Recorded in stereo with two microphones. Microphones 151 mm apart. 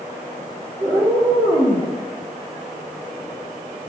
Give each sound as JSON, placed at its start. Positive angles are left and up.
{"t": 0.8, "sound": "a cat meowing", "side_deg": -30, "distance_m": 1.4}